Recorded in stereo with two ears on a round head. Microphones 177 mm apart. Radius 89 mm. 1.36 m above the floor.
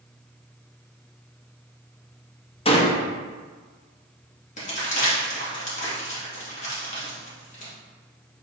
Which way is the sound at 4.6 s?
40° left (ahead or behind).